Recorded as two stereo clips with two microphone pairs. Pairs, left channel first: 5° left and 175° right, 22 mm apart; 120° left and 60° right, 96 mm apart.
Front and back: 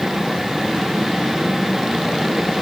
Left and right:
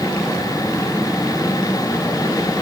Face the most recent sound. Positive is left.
No sound to turn to.